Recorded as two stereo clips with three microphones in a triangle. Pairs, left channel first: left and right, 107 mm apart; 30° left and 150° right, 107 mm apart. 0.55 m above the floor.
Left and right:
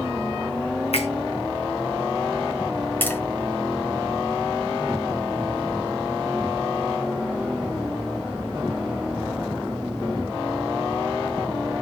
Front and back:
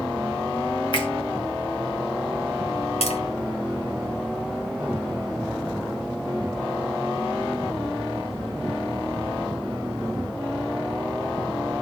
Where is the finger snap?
70° left, 4.5 m.